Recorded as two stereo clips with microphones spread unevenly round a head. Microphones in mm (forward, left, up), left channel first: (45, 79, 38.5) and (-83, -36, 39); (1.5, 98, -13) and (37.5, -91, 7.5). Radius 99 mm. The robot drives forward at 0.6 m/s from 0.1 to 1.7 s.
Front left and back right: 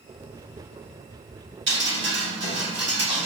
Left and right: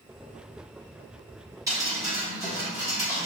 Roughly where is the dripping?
Behind right.